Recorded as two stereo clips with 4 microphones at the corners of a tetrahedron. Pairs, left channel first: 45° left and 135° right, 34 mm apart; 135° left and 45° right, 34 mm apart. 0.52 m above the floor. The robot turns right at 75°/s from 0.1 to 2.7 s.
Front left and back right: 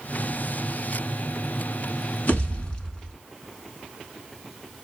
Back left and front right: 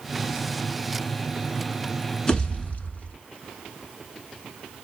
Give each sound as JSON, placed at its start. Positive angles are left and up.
{"t": 2.3, "sound": "a pop", "azimuth_deg": 70, "distance_m": 0.8}